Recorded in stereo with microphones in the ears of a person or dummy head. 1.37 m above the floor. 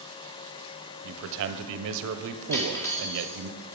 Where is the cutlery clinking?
15° left (ahead or behind), 0.9 m.